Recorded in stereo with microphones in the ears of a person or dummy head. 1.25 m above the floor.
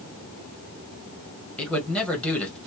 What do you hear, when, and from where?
1.6 s a man speaking: 10° left (ahead or behind), 1.3 m